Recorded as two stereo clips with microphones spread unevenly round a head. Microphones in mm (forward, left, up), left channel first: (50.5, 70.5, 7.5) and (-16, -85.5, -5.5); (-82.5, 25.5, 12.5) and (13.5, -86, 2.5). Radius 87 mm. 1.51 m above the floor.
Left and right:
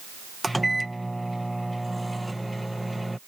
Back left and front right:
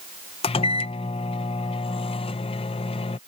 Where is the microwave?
150° left.